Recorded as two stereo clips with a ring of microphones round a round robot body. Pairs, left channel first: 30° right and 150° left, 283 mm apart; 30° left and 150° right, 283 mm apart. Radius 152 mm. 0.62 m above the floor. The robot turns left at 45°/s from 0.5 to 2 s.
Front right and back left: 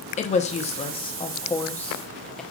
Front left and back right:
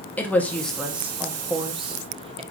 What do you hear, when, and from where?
0.2 s a woman speaking: 50° right, 0.8 m; by 2.4 s 115° right, 0.8 m